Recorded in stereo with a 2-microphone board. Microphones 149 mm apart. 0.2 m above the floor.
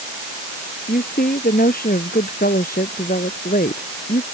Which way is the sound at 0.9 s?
85° left.